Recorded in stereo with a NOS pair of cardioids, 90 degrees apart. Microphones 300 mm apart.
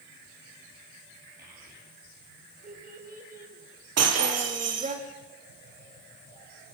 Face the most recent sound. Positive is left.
turn(degrees=-60)